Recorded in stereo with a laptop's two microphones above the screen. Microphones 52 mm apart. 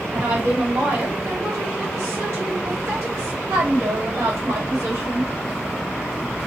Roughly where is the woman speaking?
Right.